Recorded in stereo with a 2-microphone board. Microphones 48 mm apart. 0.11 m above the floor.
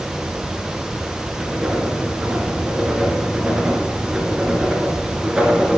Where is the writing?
15° right (ahead or behind), 1.6 m.